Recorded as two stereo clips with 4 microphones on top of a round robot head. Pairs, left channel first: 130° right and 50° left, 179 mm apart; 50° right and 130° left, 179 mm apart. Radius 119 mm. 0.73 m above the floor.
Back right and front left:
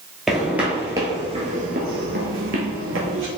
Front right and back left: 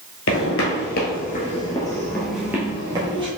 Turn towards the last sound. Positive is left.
turn(degrees=70)